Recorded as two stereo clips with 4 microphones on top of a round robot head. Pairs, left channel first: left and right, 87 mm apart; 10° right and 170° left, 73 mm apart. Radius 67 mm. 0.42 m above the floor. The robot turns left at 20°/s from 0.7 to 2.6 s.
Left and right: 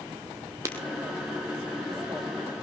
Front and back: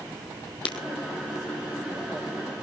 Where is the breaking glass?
25° right, 1.9 m.